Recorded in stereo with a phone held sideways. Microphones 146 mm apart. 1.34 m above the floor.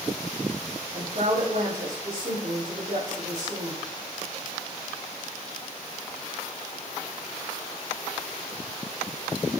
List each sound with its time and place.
0.9 s a woman speaking: 65° right (ahead or behind), 3.5 m